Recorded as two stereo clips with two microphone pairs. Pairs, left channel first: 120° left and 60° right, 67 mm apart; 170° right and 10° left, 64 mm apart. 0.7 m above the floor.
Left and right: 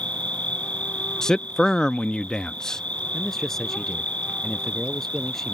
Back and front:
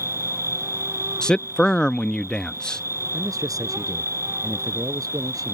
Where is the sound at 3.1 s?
35° left.